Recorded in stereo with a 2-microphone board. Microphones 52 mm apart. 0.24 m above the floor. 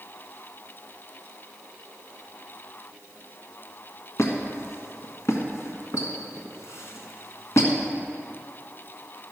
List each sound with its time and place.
4.2 s a squeak: 65° left (ahead or behind), 1.5 m